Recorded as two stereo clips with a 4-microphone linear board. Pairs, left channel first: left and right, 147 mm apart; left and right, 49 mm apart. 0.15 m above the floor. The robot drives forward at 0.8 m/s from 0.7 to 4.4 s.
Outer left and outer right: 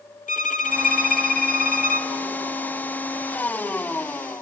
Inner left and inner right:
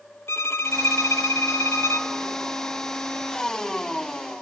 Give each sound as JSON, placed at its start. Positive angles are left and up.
{"t": 0.3, "sound": "a violin", "side_deg": 60, "distance_m": 1.2}